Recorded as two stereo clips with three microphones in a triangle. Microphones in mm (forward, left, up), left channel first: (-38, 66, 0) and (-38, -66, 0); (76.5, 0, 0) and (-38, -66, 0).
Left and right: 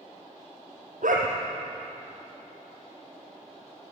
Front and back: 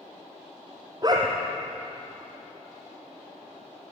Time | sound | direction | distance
1.0 | a dog barking | 90° right | 4 m